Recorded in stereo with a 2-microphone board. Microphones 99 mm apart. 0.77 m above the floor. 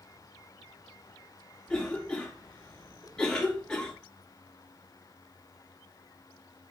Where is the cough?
10° left (ahead or behind), 2 m.